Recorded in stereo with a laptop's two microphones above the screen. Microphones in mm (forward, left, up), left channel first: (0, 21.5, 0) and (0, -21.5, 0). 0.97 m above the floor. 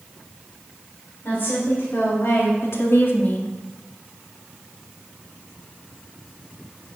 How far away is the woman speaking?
About 3.5 m.